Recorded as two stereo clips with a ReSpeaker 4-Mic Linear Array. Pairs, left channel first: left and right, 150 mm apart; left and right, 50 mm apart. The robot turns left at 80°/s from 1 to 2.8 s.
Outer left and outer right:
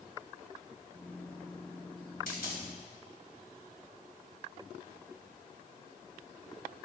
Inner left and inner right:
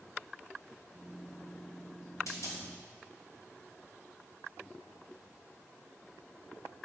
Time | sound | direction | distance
2.3 | a dropped coin | 75° left (ahead or behind) | 3 m